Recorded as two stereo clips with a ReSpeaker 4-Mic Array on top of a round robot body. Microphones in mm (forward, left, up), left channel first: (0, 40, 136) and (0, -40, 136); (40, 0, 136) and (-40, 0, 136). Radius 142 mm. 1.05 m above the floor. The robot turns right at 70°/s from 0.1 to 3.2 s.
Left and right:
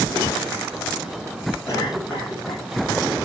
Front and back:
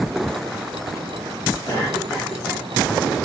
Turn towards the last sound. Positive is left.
turn(degrees=145)